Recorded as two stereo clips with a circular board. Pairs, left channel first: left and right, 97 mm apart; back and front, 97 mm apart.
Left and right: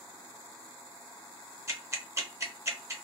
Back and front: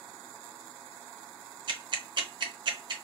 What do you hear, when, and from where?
1.7 s ticking: 30° right, 0.7 m